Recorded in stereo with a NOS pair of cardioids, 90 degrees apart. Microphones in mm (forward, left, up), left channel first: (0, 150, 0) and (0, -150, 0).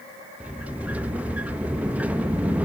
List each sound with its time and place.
0.4 s a sliding door: 5° right, 0.9 m